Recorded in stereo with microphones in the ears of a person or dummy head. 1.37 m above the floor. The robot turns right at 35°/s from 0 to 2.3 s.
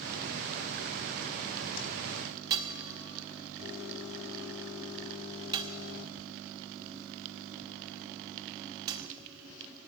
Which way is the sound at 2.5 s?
20° right (ahead or behind).